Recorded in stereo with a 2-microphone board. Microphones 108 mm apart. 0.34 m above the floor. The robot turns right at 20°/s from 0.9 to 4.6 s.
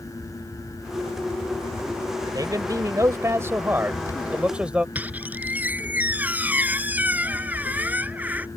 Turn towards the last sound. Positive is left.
turn(degrees=-15)  # may be behind; listen again after turning